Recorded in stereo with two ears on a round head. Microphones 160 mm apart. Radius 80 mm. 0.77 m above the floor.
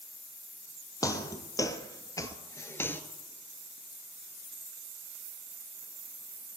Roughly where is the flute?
No flute in this recording.